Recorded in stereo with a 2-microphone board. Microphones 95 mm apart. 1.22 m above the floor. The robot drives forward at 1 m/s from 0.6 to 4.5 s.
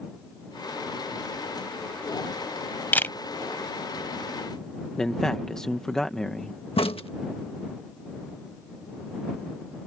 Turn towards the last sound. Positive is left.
turn(degrees=80)